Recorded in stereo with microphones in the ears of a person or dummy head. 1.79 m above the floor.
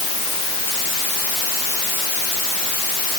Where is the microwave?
I don't hear a microwave.